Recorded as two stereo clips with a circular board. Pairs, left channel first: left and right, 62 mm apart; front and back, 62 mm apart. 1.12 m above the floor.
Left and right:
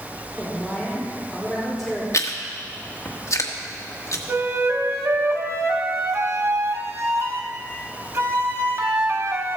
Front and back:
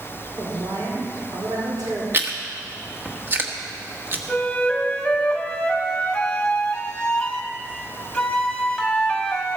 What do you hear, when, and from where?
0.4 s a woman speaking: 175° left, 3.5 m
2.1 s chewing: 125° left, 1.4 m
4.3 s a flute: 70° right, 1.5 m